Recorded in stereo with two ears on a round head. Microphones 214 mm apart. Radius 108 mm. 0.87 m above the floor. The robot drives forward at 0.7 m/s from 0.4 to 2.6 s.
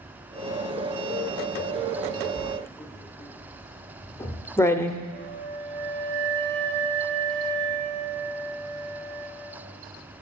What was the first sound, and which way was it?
Writing, 15° left (ahead or behind).